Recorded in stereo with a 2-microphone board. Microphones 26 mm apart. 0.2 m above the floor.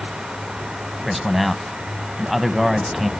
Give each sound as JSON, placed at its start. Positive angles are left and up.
{"t": 1.0, "sound": "a man speaking", "side_deg": -5, "distance_m": 1.0}